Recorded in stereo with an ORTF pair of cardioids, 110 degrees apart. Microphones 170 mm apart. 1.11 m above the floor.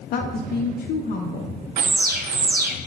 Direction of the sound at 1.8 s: 60° right.